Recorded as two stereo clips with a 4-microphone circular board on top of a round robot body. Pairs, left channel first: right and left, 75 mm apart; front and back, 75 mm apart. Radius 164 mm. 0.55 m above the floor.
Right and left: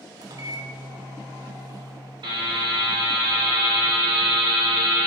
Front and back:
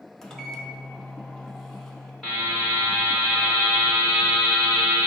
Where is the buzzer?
85° left, 0.5 m.